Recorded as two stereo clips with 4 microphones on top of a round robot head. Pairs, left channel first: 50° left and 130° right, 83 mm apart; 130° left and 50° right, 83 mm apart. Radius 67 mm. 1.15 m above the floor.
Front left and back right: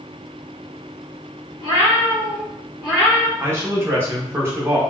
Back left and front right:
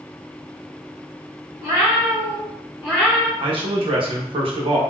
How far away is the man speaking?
About 0.9 m.